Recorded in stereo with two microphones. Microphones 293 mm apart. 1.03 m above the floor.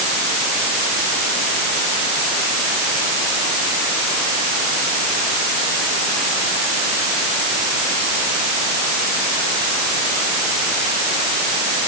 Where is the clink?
I don't hear a clink.